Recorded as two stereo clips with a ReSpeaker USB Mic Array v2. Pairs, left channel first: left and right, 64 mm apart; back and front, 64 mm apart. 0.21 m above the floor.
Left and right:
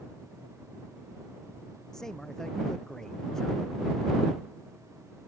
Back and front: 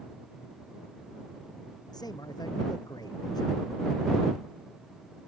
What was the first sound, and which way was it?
A man speaking, 175° left.